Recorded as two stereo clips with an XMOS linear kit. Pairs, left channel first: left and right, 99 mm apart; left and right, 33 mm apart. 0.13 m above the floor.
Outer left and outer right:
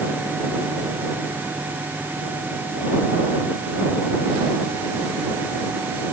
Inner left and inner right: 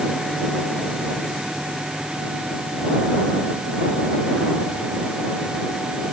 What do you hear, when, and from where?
Only background noise.